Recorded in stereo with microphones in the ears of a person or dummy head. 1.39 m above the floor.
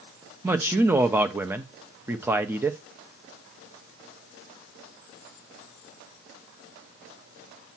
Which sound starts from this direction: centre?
A man speaking, at 0.4 s.